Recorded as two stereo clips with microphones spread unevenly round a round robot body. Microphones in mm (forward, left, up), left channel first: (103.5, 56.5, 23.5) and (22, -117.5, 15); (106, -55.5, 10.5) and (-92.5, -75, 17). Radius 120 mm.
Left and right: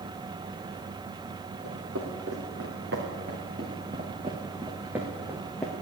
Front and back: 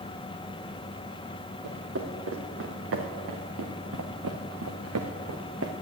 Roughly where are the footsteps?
Behind right.